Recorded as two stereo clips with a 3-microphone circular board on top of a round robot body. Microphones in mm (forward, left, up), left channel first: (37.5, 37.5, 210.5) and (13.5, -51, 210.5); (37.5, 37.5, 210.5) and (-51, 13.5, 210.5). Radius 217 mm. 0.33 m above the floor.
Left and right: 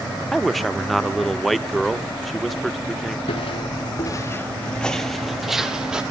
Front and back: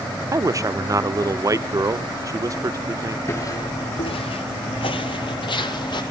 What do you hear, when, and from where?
0.3 s a man speaking: 165° left, 1.3 m
3.3 s footsteps: 75° left, 0.6 m; by 6.0 s 25° right, 1.4 m